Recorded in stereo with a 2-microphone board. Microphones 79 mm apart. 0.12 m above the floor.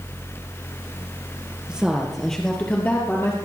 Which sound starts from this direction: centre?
A woman speaking, at 1.7 s.